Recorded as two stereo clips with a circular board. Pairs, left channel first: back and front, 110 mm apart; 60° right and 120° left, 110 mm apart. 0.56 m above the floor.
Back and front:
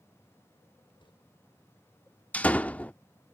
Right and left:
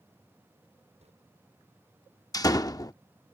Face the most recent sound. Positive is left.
turn(degrees=-105)